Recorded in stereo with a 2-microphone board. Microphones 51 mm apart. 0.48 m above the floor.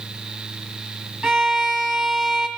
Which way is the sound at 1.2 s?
10° right (ahead or behind).